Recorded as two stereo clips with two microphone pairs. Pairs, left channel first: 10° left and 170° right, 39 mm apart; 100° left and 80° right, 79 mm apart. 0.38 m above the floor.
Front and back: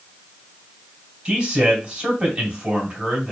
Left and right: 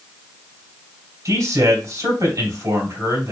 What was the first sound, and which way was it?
A man speaking, 115° right.